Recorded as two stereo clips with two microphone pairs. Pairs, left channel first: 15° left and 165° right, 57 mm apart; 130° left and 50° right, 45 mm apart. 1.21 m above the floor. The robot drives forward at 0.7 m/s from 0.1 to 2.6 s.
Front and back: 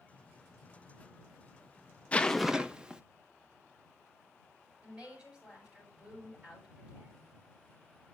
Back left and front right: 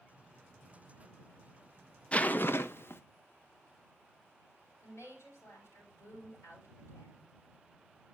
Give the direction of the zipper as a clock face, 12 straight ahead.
10 o'clock.